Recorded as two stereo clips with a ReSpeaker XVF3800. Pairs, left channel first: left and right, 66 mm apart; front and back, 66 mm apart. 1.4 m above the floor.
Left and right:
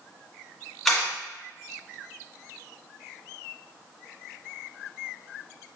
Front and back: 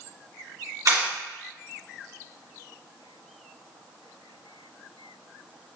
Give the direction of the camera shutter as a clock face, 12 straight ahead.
6 o'clock.